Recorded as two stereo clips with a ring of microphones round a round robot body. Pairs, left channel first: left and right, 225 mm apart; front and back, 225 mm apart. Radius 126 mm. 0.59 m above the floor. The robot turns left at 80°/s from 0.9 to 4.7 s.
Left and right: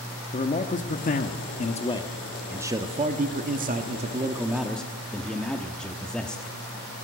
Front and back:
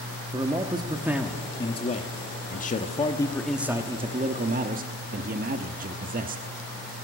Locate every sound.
0.3 s a man speaking: 120° left, 1.1 m; by 6.5 s 175° left, 1.1 m